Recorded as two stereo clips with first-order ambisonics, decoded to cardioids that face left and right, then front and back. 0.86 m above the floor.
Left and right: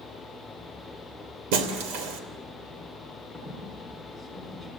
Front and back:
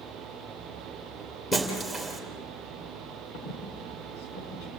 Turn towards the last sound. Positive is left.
turn(degrees=5)